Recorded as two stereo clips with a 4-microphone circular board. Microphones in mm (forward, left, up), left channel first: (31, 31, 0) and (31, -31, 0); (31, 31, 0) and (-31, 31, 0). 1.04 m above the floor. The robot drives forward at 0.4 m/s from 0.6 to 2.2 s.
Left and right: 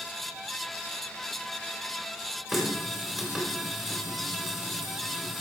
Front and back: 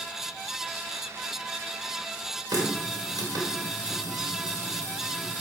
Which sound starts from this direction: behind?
A running tap, at 2.5 s.